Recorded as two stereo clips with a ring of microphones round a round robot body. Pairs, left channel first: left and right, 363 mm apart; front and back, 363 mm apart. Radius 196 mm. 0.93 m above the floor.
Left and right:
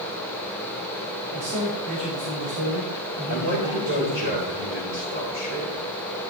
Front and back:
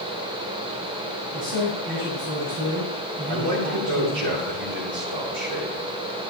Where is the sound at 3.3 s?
150° right, 4 m.